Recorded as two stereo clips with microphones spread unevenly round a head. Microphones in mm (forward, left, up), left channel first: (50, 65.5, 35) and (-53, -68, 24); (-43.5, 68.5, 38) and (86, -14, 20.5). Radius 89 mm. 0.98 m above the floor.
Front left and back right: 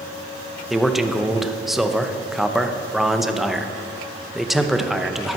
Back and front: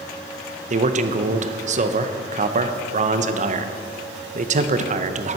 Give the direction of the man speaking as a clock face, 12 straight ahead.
1 o'clock.